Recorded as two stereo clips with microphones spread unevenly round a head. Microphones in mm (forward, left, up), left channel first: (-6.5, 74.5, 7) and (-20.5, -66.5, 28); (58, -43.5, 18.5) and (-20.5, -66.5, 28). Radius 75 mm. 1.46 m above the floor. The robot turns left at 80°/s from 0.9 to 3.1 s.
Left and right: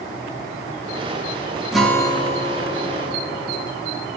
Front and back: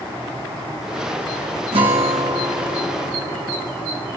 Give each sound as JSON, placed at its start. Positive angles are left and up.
{"t": 1.7, "sound": "a guitar", "azimuth_deg": 180, "distance_m": 2.0}